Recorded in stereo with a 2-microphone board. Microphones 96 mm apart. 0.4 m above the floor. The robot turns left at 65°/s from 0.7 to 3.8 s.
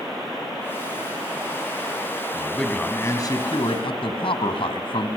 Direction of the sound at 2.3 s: 165° right.